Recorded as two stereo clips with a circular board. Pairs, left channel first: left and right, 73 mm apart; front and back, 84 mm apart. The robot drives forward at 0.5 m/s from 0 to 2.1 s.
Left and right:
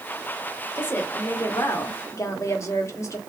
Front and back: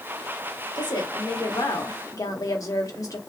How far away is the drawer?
I don't hear a drawer.